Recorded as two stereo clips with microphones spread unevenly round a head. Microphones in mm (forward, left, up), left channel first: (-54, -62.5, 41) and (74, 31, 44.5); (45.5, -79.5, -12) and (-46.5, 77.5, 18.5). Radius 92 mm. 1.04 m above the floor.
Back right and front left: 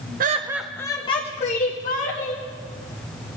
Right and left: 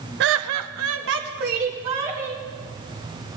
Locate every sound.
0.2 s laughter: 80° left, 0.6 m; by 2.4 s 175° left, 2 m